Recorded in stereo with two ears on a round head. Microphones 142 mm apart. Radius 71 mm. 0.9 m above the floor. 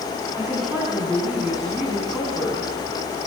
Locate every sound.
0.3 s a woman speaking: 5° right (ahead or behind), 8.5 m; by 2.7 s 10° right (ahead or behind), 8 m